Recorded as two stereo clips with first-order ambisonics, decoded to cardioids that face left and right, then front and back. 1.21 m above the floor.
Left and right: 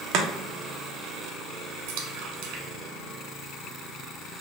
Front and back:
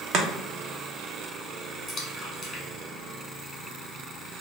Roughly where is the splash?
Right.